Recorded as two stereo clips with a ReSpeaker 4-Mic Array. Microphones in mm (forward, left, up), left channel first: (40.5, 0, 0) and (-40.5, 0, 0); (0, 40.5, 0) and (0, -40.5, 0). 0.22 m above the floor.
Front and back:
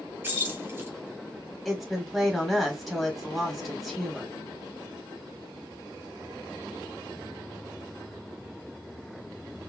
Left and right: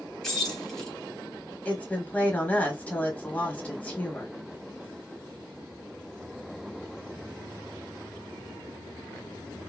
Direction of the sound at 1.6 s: 85° left.